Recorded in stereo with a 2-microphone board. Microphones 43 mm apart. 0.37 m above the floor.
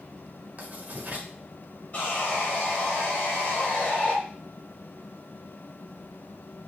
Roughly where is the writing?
Right.